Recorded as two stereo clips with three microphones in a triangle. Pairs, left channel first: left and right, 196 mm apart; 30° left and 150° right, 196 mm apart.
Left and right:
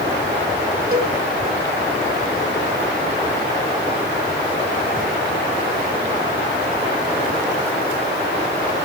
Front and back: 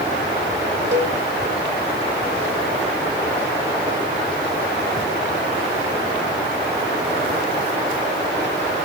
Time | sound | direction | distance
0.9 | a cowbell | 130° right | 2 m